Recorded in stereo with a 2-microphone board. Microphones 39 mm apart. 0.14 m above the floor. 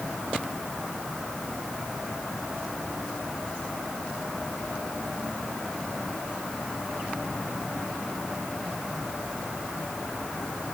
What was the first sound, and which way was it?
Only background noise.